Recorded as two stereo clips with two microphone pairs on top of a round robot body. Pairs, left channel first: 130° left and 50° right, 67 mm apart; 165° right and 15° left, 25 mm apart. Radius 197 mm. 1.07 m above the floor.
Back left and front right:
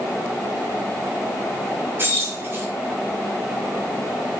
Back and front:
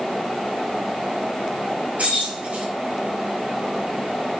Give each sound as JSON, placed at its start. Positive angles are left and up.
{"t": 2.0, "sound": "keys jangling", "azimuth_deg": 5, "distance_m": 4.0}